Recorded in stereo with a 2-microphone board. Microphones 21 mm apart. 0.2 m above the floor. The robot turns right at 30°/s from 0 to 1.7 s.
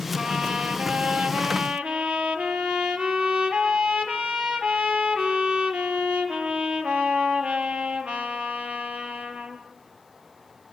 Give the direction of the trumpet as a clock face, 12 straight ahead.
5 o'clock.